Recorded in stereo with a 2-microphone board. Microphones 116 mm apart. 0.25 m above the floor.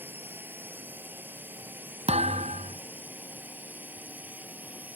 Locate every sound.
0.0 s a drone: 15° right (ahead or behind)
2.1 s a thud: 65° right (ahead or behind)